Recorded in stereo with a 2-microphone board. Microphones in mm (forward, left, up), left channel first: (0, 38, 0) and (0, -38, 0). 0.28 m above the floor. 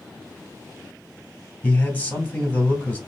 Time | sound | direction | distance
1.6 | a man speaking | 20° left (ahead or behind) | 2.0 m